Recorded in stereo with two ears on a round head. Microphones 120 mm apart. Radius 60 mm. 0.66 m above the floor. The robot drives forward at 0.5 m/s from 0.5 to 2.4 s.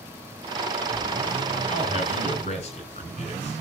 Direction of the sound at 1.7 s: 50° left (ahead or behind).